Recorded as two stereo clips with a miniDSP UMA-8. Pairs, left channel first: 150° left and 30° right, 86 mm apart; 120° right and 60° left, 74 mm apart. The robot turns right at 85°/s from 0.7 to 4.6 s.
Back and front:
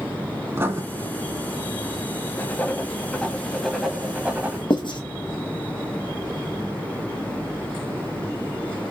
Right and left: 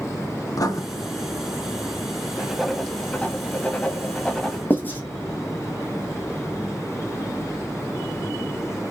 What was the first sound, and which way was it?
Writing, 90° right.